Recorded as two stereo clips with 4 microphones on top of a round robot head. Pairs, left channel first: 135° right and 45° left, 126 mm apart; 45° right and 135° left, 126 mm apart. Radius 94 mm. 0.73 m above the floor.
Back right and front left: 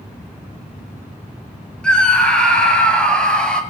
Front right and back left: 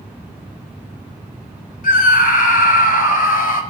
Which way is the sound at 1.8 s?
55° right.